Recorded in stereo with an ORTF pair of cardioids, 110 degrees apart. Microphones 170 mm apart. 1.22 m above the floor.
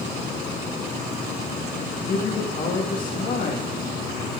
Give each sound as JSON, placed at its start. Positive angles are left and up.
{"t": 1.9, "sound": "a man speaking", "azimuth_deg": 55, "distance_m": 1.8}